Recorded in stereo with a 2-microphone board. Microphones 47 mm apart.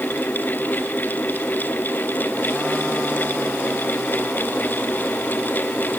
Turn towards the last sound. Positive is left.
No sound to turn to.